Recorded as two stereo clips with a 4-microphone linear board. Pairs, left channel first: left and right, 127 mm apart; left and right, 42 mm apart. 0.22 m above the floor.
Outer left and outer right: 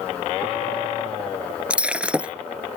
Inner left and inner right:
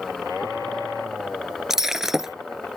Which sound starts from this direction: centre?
Breaking glass, at 1.7 s.